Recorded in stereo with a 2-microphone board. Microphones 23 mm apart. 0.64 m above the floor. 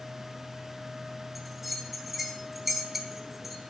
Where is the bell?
5° right (ahead or behind), 0.7 m.